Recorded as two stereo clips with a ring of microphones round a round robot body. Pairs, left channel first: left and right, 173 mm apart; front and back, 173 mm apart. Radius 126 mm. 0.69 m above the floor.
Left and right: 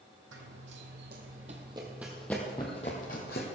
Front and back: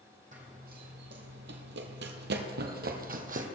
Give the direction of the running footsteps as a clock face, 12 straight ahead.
4 o'clock.